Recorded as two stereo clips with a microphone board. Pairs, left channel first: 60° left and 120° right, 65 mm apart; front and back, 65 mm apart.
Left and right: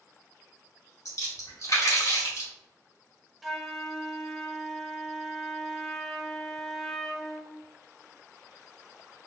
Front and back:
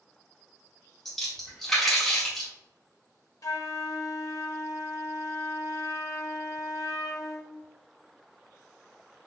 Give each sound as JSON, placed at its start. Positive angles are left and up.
{"t": 1.1, "sound": "a splash", "azimuth_deg": 85, "distance_m": 1.5}
{"t": 3.4, "sound": "a flute", "azimuth_deg": -30, "distance_m": 0.5}